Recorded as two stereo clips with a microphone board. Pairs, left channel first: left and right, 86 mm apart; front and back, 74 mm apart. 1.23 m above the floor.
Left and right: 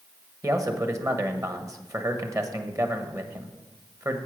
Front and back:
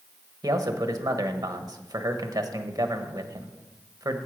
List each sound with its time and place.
0.4 s a man speaking: 140° right, 1.1 m